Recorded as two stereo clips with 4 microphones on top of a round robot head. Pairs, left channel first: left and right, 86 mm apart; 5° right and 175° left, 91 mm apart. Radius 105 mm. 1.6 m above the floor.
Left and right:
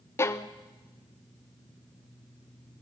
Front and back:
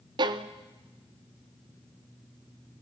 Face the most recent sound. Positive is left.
turn(degrees=145)